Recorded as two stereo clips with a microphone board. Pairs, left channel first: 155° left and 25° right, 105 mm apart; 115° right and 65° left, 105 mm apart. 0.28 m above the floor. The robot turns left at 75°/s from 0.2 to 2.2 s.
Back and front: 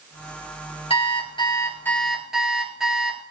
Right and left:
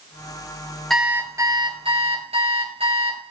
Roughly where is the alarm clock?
Behind.